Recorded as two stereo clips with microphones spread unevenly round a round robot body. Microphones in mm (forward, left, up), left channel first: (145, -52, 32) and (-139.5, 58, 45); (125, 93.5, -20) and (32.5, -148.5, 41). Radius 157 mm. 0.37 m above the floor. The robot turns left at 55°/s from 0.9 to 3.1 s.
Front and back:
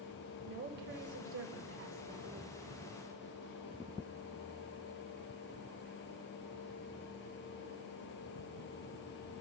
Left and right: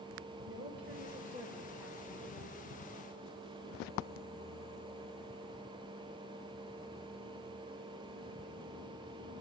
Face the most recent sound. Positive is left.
turn(degrees=75)